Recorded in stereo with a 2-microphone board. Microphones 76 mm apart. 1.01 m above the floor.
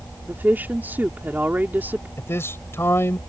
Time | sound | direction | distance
0.3 | a woman speaking | 25° right (ahead or behind) | ?
2.2 | a man speaking | 35° left (ahead or behind) | ?